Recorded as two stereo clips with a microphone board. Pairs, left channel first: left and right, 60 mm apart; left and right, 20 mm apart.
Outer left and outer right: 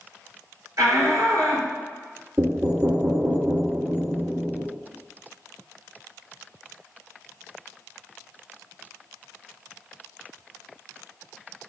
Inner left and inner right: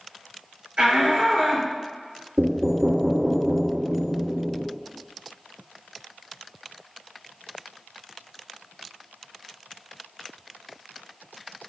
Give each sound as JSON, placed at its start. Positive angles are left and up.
{"t": 0.8, "sound": "a shout", "side_deg": -60, "distance_m": 3.0}
{"t": 2.4, "sound": "knocking", "side_deg": -40, "distance_m": 1.8}